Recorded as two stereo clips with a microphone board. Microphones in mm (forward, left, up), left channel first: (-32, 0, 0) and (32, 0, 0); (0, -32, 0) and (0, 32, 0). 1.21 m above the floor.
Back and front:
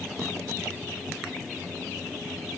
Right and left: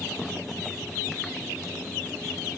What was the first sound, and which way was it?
Only background noise.